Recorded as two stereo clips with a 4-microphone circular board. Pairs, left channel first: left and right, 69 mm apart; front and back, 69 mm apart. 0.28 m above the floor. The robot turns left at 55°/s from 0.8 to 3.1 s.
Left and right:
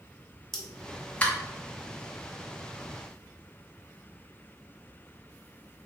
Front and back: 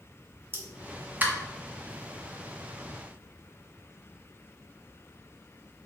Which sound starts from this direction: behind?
A pop, at 0.5 s.